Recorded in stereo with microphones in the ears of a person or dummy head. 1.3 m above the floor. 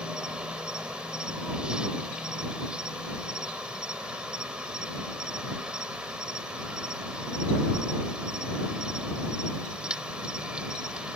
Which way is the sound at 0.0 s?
5° right (ahead or behind).